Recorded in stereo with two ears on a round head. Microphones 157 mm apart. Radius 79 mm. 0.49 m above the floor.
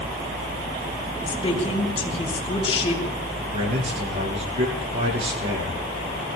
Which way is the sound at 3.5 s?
35° right (ahead or behind).